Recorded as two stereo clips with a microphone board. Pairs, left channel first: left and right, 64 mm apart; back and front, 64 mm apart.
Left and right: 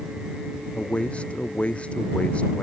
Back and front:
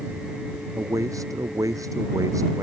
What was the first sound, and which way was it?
A man speaking, 20° left.